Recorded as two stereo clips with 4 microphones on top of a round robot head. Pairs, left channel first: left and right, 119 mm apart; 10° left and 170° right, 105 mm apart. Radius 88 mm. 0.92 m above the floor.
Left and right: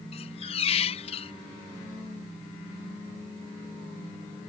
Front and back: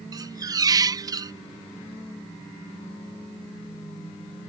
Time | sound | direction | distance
0.1 | a squeak | 135° left | ?